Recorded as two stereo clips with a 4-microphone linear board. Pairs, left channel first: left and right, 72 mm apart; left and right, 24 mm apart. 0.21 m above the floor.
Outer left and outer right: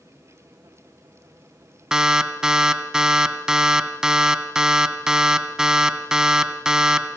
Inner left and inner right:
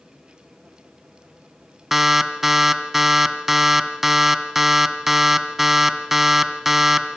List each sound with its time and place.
1.9 s an alarm: 10° right (ahead or behind), 1.7 m